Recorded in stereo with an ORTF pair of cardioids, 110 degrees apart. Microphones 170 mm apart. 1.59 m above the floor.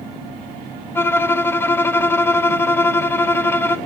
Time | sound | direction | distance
0.9 | a violin | 15° left | 0.5 m